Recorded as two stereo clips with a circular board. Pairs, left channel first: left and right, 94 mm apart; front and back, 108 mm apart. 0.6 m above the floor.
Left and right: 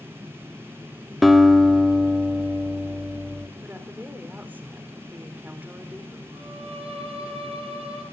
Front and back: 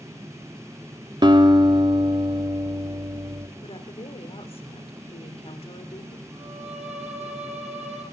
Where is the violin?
105° right, 10 m.